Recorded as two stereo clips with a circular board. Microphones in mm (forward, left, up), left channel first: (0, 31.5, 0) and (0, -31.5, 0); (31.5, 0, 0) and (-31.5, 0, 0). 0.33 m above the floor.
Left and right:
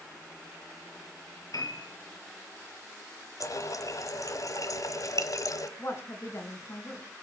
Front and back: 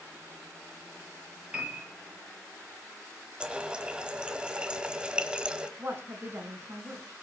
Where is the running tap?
105° left, 1.3 m.